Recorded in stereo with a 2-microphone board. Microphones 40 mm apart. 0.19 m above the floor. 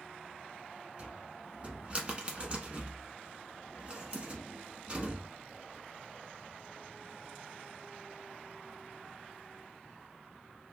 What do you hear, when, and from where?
1.0 s a cupboard door: 35° right (ahead or behind), 0.9 m